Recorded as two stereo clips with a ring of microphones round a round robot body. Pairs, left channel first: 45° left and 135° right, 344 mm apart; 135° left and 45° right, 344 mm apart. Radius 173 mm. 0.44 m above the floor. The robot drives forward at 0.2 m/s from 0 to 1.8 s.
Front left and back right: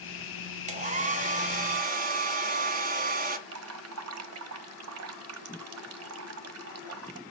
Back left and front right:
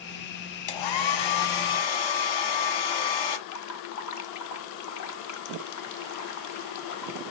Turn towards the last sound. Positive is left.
turn(degrees=175)